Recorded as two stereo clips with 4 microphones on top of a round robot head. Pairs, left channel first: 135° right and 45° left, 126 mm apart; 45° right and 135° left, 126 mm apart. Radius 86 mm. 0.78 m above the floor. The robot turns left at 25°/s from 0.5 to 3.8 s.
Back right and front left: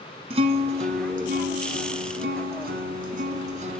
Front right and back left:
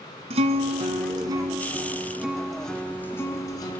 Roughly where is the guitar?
Left.